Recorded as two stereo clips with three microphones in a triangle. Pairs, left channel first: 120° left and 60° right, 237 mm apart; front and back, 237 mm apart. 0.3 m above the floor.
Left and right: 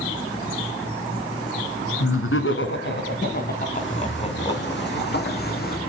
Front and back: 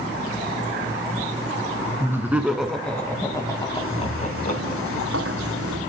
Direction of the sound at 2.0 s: 100° left.